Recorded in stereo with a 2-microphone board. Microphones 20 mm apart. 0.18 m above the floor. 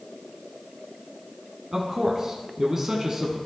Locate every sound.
1.7 s a man speaking: 20° right (ahead or behind), 1.9 m